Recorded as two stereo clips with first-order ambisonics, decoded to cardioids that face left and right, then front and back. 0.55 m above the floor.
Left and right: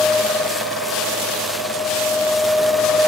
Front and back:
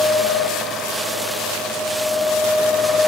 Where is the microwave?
I don't hear a microwave.